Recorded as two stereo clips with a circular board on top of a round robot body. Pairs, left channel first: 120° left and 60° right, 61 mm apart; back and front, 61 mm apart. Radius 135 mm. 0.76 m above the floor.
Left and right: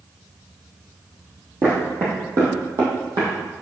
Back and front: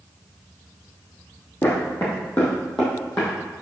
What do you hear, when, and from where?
1.6 s footsteps: 120° right, 2 m; by 3.4 s 95° right, 2.5 m